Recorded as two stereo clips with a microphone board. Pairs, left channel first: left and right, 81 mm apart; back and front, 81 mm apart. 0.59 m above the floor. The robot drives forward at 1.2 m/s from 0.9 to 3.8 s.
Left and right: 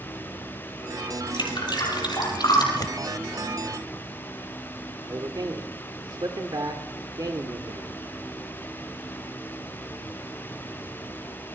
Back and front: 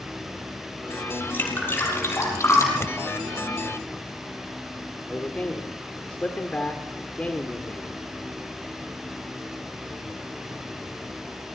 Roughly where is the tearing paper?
Behind left.